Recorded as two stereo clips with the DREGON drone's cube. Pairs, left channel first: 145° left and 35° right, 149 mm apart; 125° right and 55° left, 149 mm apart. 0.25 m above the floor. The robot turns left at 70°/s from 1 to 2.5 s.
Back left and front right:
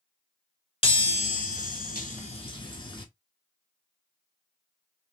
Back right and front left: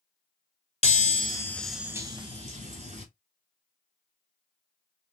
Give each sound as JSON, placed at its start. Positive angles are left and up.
{"t": 0.8, "sound": "a chime", "azimuth_deg": -165, "distance_m": 0.9}